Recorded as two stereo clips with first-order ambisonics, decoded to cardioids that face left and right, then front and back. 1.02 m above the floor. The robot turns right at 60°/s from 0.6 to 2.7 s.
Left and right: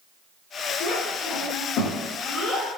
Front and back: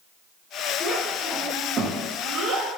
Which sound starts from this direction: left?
A child speaking, at 0.8 s.